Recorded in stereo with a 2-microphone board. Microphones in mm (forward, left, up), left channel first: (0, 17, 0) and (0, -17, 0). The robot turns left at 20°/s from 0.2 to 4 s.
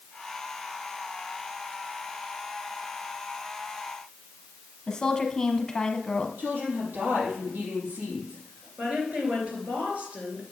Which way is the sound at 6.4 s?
70° right (ahead or behind).